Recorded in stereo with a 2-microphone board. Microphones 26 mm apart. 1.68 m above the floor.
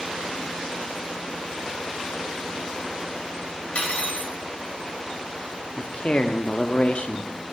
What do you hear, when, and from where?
3.8 s cutlery clinking: 55° left (ahead or behind), 1.8 m
5.8 s a man speaking: 45° left (ahead or behind), 0.6 m